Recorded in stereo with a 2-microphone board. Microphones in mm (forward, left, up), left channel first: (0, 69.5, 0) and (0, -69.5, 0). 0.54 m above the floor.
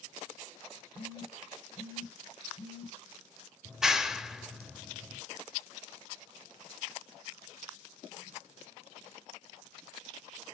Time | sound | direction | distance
0.9 | a phone buzzing | 35° left (ahead or behind) | 2 m
3.6 | a clap | 5° right (ahead or behind) | 0.9 m